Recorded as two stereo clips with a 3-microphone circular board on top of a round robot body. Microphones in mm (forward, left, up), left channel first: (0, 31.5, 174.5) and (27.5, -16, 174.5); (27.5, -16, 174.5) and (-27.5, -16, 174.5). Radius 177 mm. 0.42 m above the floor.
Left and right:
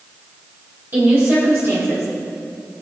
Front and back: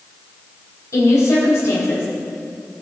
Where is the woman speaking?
10° right, 4 m; by 2.1 s 30° right, 3 m.